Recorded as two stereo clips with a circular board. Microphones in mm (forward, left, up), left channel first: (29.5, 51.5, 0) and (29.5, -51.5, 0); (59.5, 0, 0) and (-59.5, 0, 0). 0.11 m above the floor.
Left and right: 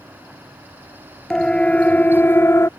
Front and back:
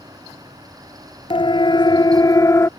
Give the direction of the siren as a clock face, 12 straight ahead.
12 o'clock.